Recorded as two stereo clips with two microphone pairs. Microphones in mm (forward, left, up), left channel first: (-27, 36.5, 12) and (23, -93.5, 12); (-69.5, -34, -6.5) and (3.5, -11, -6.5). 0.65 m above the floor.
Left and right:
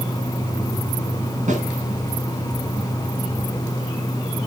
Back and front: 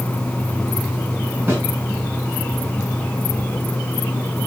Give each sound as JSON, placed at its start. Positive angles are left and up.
{"t": 1.5, "sound": "a snare drum", "azimuth_deg": -45, "distance_m": 7.5}